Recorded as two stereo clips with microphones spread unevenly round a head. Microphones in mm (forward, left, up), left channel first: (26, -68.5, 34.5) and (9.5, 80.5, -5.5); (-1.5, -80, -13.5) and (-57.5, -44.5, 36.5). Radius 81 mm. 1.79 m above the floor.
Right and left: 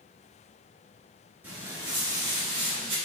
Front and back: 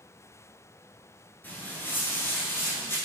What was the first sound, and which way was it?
Footsteps, 165° right.